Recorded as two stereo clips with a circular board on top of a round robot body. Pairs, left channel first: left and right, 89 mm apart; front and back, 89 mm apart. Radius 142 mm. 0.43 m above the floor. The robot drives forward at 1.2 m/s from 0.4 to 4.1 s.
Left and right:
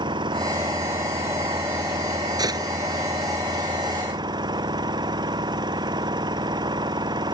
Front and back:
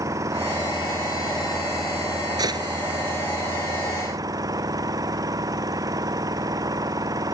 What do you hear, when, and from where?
0.0 s an engine running: 125° right; by 7.3 s 130° right
2.4 s a gunshot: 135° right